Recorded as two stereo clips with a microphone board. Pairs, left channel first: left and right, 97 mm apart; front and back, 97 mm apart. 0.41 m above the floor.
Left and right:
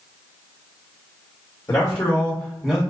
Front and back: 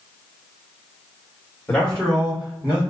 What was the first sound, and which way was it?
A man speaking, 65° left.